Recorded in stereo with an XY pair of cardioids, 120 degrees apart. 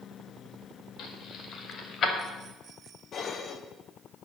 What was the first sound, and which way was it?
Keys jangling, 65° left.